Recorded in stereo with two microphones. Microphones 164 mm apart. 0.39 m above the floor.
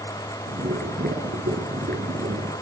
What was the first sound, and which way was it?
Boiling, 80° right.